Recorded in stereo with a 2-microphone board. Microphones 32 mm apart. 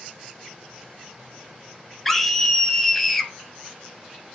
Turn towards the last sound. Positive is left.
turn(degrees=10)  # may be behind; listen again after turning